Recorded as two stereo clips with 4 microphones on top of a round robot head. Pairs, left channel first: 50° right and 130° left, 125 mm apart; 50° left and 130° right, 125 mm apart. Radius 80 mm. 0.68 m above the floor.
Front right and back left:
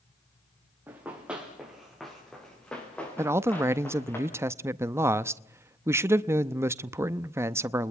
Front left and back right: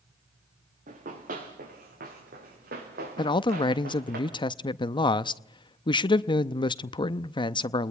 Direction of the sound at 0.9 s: 155° right.